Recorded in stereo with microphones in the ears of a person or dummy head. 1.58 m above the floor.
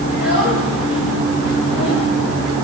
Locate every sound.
0.1 s a child speaking: 75° left (ahead or behind), 5 m